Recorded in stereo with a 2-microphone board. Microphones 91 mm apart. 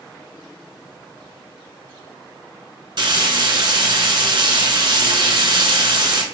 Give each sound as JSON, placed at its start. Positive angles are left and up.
{"t": 3.0, "sound": "frying", "side_deg": -60, "distance_m": 1.0}